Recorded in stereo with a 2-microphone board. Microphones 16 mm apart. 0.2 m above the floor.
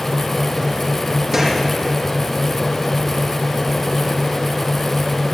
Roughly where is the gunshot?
Right.